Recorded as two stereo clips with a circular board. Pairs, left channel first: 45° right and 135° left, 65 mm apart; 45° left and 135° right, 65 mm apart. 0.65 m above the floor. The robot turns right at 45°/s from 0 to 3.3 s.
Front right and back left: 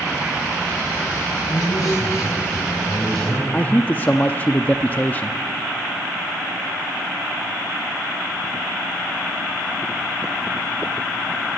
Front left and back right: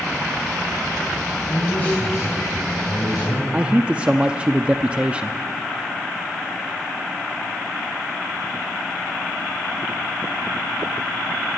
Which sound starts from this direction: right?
A man speaking, at 3.5 s.